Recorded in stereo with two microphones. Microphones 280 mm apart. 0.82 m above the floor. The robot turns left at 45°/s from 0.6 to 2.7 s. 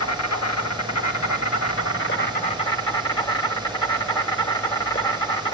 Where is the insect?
110° left, 1.0 m; by 5.5 s 15° left, 1.0 m.